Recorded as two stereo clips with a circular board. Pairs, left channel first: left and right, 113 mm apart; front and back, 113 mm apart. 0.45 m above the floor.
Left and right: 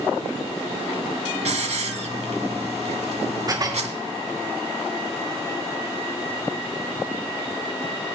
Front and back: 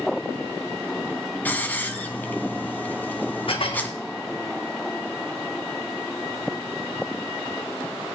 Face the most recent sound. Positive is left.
turn(degrees=-35)